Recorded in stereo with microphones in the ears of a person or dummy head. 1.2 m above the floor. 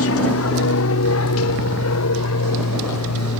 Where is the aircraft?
65° left (ahead or behind); by 3.4 s 75° left (ahead or behind).